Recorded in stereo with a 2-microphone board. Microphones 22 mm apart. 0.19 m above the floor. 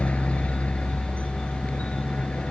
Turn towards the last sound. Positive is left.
turn(degrees=65)  # may be behind; listen again after turning